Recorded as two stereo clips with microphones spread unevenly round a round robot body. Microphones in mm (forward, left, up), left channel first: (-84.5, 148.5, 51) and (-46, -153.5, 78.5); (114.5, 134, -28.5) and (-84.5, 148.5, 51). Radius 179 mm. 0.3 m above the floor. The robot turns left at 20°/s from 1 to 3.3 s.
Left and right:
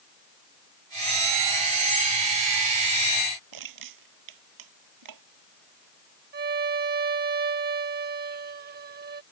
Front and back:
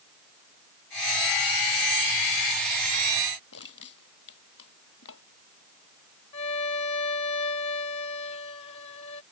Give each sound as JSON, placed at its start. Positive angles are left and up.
{"t": 3.5, "sound": "crushing", "azimuth_deg": -50}
{"t": 6.3, "sound": "a violin", "azimuth_deg": -25}